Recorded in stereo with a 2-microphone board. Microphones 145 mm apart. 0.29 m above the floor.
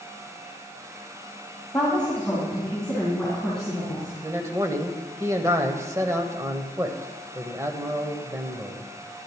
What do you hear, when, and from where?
1.7 s a woman speaking: 5° left (ahead or behind), 1.9 m
4.2 s a man speaking: 20° right (ahead or behind), 1.0 m